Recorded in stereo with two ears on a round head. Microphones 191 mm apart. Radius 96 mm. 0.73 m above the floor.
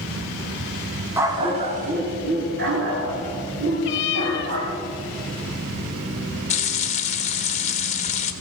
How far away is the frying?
About 1.0 m.